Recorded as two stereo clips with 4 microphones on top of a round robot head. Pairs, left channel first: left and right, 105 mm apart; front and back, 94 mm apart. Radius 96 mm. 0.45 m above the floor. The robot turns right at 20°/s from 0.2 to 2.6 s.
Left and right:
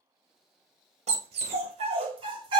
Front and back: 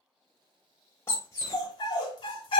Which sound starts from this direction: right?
A dog barking, at 1.1 s.